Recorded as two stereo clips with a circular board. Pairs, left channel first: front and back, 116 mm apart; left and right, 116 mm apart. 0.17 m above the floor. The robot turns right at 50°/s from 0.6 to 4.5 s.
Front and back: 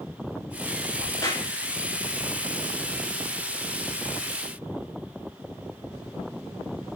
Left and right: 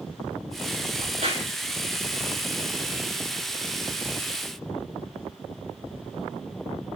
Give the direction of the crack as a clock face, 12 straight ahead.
3 o'clock.